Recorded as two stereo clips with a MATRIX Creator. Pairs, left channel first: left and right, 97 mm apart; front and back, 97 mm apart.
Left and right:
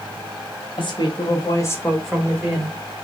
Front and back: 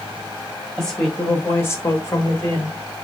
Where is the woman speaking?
85° left, 1.8 m; by 2.8 s 40° right, 1.4 m.